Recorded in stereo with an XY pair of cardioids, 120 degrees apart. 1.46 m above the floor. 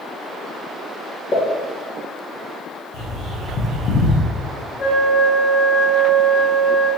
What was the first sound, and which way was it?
A pop, 30° left.